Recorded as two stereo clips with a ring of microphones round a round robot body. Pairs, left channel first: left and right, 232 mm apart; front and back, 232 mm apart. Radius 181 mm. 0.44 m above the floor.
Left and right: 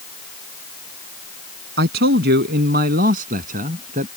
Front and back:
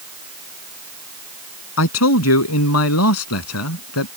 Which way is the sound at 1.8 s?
35° right.